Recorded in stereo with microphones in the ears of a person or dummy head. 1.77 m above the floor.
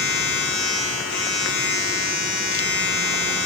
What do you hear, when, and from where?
0.0 s a machine running: 45° left (ahead or behind), 0.9 m